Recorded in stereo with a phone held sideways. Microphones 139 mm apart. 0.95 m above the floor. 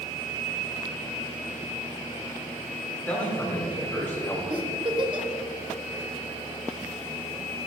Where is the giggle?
35° right (ahead or behind), 1.5 m.